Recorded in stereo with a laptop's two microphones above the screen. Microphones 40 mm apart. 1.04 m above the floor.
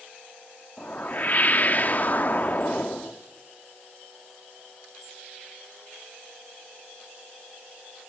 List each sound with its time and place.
0.8 s a whoosh: 40° left (ahead or behind), 0.8 m